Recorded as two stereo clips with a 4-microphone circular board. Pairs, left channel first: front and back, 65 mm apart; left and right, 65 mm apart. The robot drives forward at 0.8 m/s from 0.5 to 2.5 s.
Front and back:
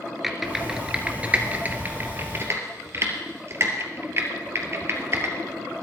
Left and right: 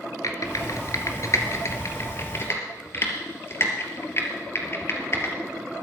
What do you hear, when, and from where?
0.2 s typing on a keyboard: 95° left, 2 m; by 5.8 s 135° left, 2.5 m